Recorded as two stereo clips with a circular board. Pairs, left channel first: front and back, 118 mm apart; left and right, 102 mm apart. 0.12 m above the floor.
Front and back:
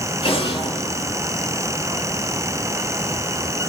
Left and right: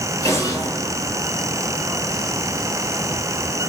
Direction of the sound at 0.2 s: 35° left.